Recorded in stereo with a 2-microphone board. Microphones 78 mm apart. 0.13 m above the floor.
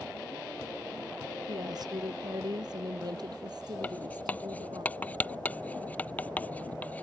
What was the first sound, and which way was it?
A woman speaking, 60° right (ahead or behind).